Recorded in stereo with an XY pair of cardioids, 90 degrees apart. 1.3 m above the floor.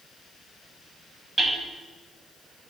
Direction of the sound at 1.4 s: 20° right.